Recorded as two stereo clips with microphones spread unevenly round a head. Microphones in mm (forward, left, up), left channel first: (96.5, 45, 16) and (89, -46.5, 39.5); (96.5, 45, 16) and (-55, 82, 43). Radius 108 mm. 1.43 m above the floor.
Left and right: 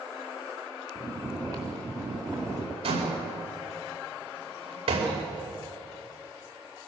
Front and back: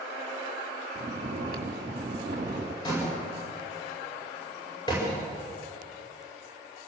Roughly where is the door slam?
Right.